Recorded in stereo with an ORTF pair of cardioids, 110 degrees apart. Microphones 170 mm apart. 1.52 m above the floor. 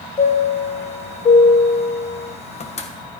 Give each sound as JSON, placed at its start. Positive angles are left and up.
{"t": 0.2, "sound": "a chime", "azimuth_deg": 40, "distance_m": 1.2}